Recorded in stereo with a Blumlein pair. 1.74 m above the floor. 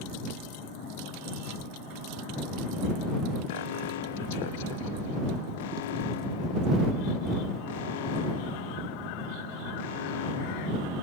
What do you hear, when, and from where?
3.5 s an alarm: 55° left